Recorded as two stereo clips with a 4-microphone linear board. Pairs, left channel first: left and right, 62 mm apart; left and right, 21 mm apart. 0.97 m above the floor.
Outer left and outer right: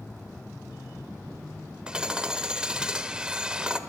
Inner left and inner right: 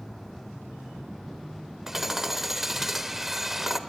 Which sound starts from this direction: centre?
Hammering, at 1.9 s.